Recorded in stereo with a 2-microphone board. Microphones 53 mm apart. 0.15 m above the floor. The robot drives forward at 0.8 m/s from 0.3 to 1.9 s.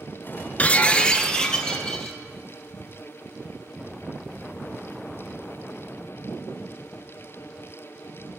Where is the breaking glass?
30° left (ahead or behind), 0.5 m; by 2.2 s 10° left (ahead or behind), 1.5 m.